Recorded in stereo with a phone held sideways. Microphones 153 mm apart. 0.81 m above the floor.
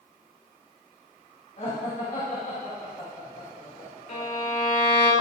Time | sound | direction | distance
1.6 | laughter | 60° left (ahead or behind) | 4 m
4.1 | a violin | 70° left (ahead or behind) | 3.5 m